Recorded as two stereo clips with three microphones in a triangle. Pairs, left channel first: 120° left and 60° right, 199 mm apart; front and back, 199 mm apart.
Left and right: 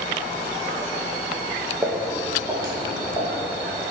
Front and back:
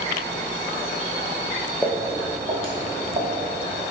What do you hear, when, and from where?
1.8 s footsteps: 115° right, 0.7 m; by 3.4 s 125° right, 1.4 m